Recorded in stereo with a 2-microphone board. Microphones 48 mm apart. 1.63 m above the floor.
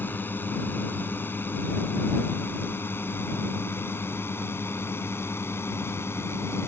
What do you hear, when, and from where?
0.0 s a drone: 45° left (ahead or behind); by 6.7 s 65° left (ahead or behind)